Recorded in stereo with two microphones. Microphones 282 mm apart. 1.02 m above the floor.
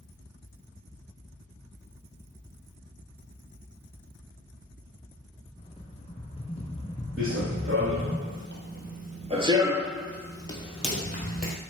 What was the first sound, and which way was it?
A rattle, 20° left (ahead or behind).